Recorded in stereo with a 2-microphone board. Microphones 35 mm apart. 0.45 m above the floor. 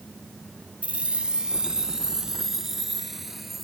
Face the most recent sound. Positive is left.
turn(degrees=-5)  # may be behind; listen again after turning